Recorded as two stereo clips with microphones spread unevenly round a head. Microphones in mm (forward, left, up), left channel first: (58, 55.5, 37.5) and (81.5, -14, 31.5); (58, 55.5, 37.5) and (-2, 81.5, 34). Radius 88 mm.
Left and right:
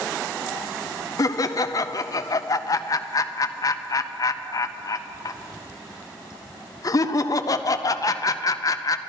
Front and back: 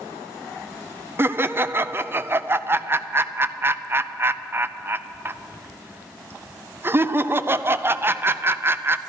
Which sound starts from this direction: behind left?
Laughter, at 1.2 s.